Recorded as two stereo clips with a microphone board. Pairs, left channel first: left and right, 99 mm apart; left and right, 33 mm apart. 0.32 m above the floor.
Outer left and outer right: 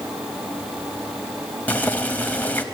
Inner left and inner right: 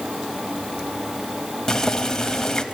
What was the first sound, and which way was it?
Boiling, 15° left (ahead or behind).